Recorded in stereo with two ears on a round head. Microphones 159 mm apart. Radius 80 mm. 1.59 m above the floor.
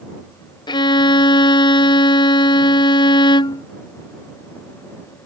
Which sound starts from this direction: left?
A violin, at 0.7 s.